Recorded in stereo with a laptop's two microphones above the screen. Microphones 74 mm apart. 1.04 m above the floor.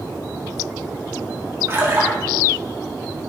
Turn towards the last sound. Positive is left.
turn(degrees=-35)  # may be behind; listen again after turning